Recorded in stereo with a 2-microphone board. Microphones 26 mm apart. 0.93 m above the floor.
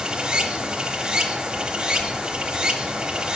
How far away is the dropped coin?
I don't hear a dropped coin.